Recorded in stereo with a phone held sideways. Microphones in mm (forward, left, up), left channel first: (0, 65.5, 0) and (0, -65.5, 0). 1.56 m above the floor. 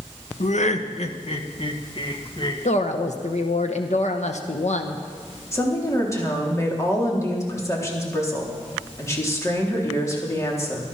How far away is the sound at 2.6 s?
About 1.1 m.